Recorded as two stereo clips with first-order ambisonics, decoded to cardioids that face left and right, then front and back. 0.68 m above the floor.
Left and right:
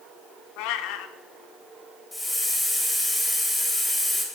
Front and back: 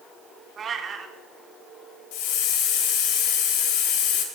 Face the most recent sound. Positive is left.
turn(degrees=5)